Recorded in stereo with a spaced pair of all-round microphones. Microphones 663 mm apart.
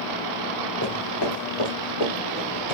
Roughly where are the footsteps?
Left.